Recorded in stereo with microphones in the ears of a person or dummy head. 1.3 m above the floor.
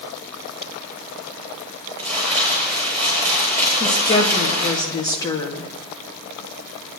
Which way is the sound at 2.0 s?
30° right (ahead or behind).